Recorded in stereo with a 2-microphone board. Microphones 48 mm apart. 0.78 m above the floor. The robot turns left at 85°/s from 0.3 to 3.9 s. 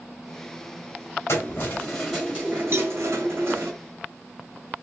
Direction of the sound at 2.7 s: 50° right (ahead or behind).